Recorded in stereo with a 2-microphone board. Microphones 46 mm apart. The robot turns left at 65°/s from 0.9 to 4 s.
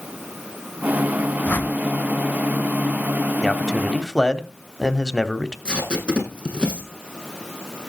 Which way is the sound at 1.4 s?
35° left (ahead or behind).